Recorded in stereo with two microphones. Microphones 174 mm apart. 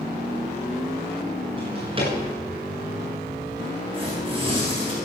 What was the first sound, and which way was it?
A drawer, 30° right (ahead or behind).